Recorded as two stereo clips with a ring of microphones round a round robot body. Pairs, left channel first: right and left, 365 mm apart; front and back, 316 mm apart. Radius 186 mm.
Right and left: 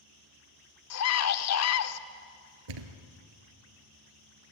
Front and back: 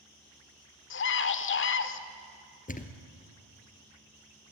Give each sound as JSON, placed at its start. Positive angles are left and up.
{"t": 0.9, "sound": "a scream", "azimuth_deg": -50, "distance_m": 1.3}
{"t": 2.7, "sound": "a thud", "azimuth_deg": 65, "distance_m": 2.0}